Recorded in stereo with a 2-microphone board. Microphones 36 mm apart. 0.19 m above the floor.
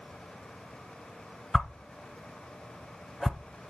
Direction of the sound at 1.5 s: 5° left (ahead or behind).